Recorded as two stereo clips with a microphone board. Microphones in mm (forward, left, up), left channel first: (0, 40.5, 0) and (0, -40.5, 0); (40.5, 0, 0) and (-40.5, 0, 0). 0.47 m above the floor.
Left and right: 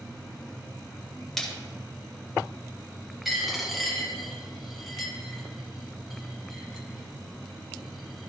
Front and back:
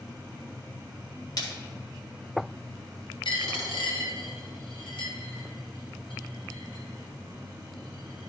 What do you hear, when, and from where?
1.4 s a splash: 5° left, 1.6 m
3.2 s a dropped coin: 5° right, 1.4 m